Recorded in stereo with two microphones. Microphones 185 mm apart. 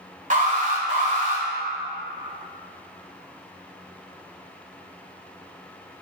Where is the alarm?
45° right (ahead or behind), 1.4 m.